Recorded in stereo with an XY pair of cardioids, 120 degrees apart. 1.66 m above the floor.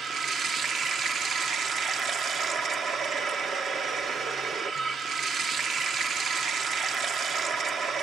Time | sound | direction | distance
0.0 | running water | 50° right | 1.5 m